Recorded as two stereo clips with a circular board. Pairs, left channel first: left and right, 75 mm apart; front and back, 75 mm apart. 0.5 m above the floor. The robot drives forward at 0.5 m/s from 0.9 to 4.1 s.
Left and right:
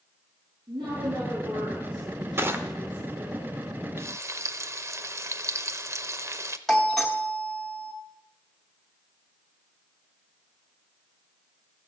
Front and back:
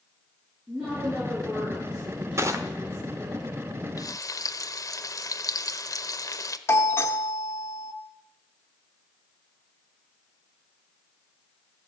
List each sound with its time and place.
0.7 s a woman speaking: 105° right, 6.5 m; by 3.4 s 115° right, 7 m
2.4 s crushing: 140° right, 1.0 m; by 2.6 s 145° right, 1.1 m
4.0 s frying: 35° right, 0.7 m; by 6.6 s 40° right, 0.6 m
6.7 s a doorbell: 10° left, 1.3 m